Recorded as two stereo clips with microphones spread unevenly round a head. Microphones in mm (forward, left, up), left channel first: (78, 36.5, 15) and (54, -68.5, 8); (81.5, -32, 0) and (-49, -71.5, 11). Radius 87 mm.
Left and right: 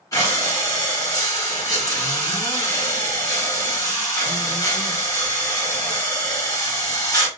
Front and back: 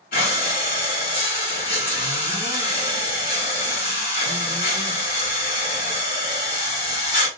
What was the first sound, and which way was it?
Breathing, 20° left.